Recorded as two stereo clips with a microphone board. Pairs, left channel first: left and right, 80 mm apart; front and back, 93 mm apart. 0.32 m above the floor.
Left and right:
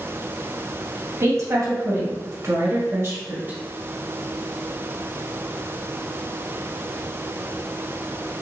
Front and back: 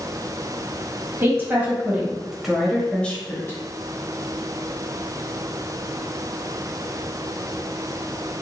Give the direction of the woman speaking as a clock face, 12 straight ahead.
4 o'clock.